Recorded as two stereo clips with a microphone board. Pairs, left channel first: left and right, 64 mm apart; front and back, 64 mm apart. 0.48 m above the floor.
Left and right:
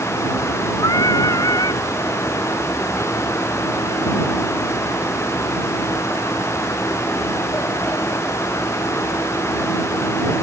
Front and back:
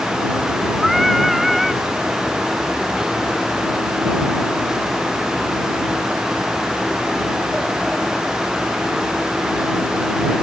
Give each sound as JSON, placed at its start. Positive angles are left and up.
{"t": 0.8, "sound": "singing", "azimuth_deg": 90}